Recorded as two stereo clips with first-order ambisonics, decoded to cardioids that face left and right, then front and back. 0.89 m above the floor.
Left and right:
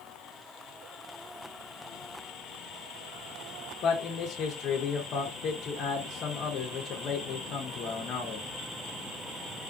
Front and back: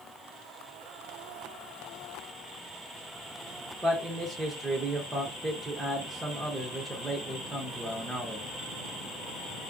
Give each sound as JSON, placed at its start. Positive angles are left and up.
{"t": 3.8, "sound": "a man speaking", "azimuth_deg": 105, "distance_m": 0.5}